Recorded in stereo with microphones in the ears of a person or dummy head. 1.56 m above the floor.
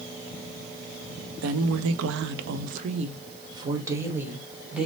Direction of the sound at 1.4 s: 75° right (ahead or behind).